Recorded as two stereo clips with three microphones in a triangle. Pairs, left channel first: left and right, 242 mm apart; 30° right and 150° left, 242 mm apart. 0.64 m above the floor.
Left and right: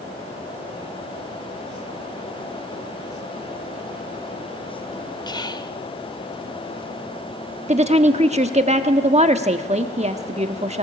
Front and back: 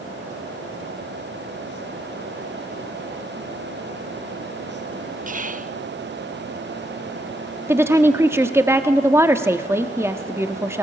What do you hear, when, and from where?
5.3 s whispering: 145° left, 0.7 m
7.7 s a woman speaking: 135° right, 1.2 m